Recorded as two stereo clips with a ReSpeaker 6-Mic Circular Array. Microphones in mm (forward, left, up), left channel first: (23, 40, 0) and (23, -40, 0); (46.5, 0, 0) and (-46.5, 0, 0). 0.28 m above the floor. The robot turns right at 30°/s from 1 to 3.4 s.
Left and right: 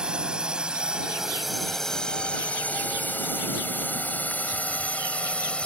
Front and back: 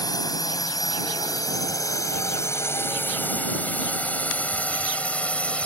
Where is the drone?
15° right; by 5.7 s 45° left.